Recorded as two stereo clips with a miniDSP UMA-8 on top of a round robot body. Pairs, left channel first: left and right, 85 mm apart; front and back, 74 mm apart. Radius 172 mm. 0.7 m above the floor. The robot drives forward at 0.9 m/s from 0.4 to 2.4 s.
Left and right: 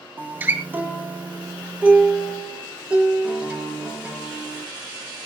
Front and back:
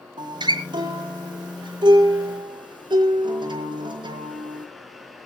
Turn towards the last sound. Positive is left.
turn(degrees=-165)